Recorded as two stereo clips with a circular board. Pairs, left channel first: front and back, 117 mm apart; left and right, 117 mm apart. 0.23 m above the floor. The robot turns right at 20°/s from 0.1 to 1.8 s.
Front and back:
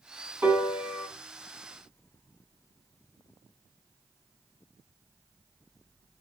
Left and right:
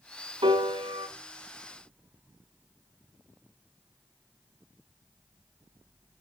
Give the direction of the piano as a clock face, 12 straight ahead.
4 o'clock.